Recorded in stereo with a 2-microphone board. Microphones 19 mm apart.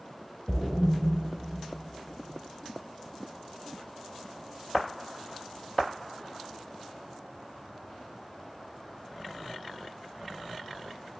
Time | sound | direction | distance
0.5 | a splash | 65° left (ahead or behind) | 0.8 m